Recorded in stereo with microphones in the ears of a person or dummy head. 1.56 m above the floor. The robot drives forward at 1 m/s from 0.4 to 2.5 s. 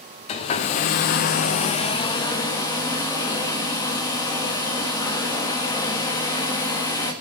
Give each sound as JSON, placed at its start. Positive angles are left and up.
{"t": 0.3, "sound": "a hair dryer", "side_deg": 35, "distance_m": 1.0}